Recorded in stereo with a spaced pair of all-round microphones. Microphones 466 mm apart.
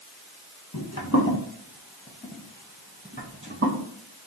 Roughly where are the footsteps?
Left.